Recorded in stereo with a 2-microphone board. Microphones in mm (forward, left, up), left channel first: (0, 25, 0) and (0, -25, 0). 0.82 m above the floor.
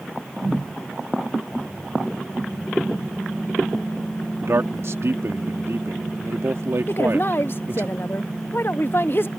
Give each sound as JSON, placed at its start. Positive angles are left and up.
{"t": 4.4, "sound": "a man speaking", "side_deg": -65}
{"t": 6.9, "sound": "a woman speaking", "side_deg": 50}